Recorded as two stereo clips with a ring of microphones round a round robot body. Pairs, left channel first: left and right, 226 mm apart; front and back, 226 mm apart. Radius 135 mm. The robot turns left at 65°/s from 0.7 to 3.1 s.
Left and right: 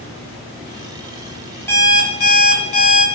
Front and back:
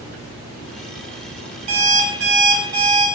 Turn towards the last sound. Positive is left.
turn(degrees=75)